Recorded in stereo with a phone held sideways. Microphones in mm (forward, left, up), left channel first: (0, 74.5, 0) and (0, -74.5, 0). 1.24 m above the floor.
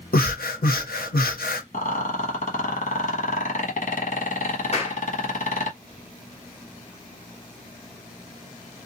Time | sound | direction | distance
0.1 | breathing | 85° left | 0.8 m
1.7 | a rattle | 60° left (ahead or behind) | 1.2 m
4.7 | a clap | 45° left (ahead or behind) | 1.0 m